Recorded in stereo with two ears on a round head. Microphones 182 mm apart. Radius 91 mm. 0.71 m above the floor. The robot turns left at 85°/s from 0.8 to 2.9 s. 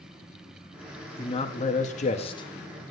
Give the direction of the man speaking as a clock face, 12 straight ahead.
7 o'clock.